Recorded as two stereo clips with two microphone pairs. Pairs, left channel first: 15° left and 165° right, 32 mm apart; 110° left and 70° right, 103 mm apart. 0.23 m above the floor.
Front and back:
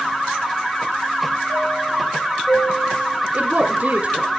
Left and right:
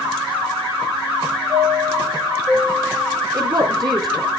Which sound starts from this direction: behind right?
A woman speaking, at 3.3 s.